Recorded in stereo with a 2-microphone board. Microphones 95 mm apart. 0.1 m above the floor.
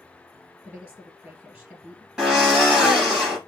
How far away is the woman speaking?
About 1.9 m.